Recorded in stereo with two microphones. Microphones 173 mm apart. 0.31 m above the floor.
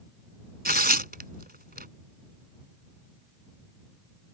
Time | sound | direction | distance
0.7 | tearing paper | 65° right (ahead or behind) | ?